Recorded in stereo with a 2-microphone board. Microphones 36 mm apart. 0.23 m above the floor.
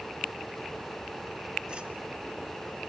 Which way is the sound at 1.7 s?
25° right (ahead or behind).